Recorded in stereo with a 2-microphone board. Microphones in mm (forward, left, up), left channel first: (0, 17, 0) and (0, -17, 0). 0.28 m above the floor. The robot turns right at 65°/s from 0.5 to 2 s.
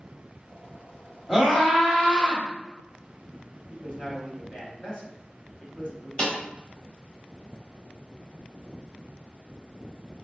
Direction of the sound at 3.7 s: 30° left (ahead or behind).